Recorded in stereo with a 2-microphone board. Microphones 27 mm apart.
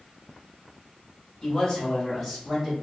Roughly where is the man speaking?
Left.